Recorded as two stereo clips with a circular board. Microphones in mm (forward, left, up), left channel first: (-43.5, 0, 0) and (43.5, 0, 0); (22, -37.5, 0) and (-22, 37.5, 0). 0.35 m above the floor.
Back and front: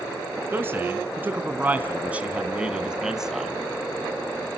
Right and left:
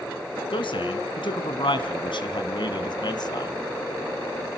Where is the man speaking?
65° right, 3.5 m; by 3.5 s 90° right, 2 m.